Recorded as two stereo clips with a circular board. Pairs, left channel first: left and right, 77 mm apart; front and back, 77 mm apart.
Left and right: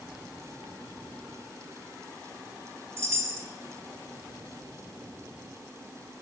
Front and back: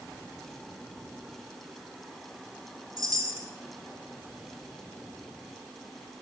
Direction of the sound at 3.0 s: 140° right.